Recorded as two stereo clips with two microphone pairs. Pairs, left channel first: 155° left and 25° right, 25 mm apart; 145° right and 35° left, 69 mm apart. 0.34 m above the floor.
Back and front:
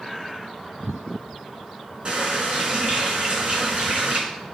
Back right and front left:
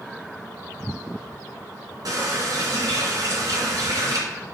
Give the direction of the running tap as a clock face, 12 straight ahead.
11 o'clock.